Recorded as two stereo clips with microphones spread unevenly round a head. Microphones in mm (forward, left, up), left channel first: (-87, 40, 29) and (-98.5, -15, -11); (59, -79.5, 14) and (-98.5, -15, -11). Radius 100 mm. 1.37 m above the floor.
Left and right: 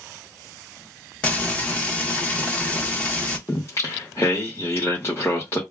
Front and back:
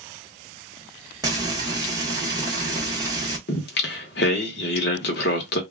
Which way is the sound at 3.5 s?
15° left.